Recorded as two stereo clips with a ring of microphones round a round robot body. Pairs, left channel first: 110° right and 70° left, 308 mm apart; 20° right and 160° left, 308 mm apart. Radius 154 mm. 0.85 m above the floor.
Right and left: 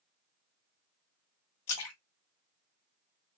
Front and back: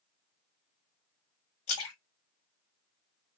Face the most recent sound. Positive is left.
turn(degrees=-70)